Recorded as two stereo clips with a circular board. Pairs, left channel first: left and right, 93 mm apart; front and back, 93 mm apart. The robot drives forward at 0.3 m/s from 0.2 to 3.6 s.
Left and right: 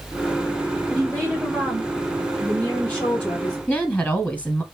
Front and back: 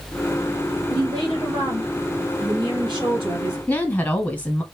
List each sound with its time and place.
0.9 s a woman speaking: 160° left, 2.5 m; by 3.6 s 165° left, 3 m
3.7 s a woman speaking: 40° left, 1.0 m